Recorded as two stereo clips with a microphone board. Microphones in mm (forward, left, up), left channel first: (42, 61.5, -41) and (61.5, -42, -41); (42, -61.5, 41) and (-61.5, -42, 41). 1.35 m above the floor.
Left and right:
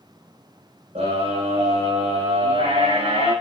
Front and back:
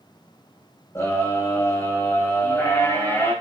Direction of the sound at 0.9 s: 75° right.